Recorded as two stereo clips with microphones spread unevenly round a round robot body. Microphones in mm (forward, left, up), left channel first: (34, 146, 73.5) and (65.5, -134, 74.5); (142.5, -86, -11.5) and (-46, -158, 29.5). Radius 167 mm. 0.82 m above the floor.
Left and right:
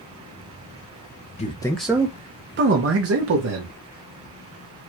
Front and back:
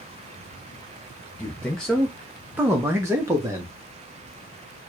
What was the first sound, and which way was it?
A man speaking, 60° left.